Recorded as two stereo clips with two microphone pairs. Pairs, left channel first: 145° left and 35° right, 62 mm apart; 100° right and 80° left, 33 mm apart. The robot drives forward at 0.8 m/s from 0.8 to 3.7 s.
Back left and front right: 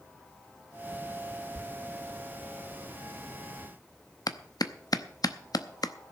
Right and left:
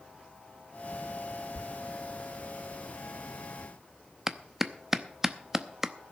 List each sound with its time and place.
1.6 s a thud: 85° right, 0.7 m; by 1.7 s 95° right, 0.7 m
4.3 s a clap: 155° left, 0.7 m